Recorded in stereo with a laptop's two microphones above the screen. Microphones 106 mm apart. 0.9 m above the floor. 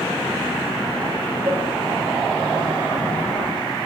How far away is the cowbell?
About 7.5 m.